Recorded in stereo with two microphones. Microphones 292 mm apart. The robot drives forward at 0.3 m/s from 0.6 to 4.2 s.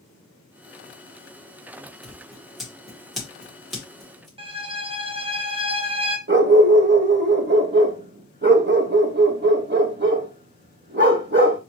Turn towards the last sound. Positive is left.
turn(degrees=-40)  # may be behind; listen again after turning